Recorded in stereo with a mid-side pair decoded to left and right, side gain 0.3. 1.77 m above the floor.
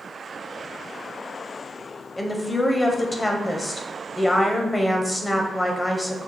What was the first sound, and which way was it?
A woman speaking, 25° left.